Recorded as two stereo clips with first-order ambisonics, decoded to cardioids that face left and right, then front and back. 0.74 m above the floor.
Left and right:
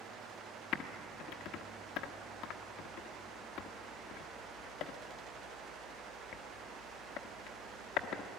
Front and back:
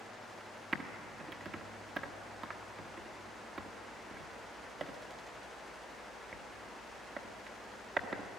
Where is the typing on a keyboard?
115° left, 1.1 m.